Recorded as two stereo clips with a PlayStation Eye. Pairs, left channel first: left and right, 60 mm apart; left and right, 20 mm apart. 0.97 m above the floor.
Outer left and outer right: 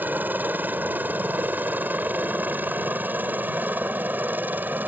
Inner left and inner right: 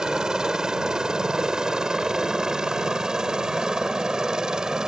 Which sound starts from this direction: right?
A helicopter, at 0.0 s.